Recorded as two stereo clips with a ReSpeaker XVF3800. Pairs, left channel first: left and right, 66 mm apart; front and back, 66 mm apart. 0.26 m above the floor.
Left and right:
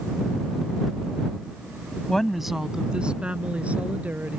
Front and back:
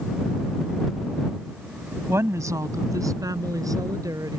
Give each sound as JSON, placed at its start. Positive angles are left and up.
{"t": 2.1, "sound": "a woman speaking", "azimuth_deg": 165}